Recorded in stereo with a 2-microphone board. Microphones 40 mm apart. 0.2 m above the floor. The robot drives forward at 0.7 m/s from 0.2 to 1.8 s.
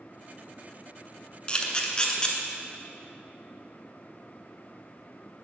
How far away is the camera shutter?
About 0.8 m.